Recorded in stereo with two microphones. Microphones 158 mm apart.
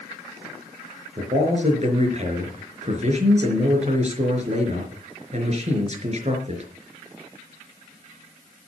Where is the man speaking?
45° right (ahead or behind), 4.5 m.